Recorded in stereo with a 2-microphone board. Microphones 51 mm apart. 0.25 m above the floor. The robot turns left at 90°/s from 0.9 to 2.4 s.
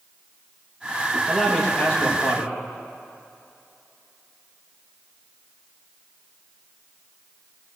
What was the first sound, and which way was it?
A man speaking, 165° right.